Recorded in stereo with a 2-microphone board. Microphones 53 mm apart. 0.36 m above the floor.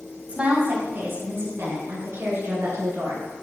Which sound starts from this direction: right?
A woman speaking, at 0.3 s.